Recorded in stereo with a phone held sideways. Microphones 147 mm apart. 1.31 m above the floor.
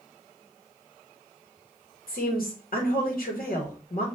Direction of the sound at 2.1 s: 75° left (ahead or behind).